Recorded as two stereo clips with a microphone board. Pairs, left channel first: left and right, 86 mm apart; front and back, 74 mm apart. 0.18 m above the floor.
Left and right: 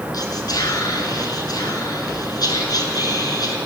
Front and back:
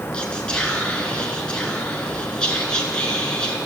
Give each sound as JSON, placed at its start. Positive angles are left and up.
{"t": 0.1, "sound": "whispering", "azimuth_deg": 75, "distance_m": 2.5}